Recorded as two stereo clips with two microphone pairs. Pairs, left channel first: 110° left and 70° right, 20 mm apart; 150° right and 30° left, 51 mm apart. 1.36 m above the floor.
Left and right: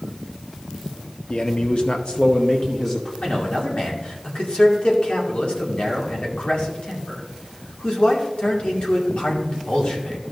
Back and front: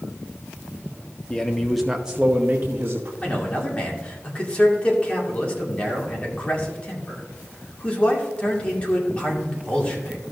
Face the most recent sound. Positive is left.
turn(degrees=140)